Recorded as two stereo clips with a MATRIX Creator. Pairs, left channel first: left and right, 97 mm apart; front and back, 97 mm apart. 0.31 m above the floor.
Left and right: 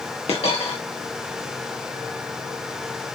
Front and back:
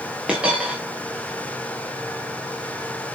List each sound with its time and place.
0.3 s a dropped coin: 100° left, 3 m